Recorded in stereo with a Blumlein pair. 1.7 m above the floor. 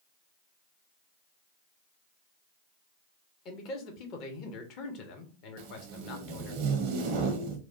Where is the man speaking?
35° left, 0.9 m.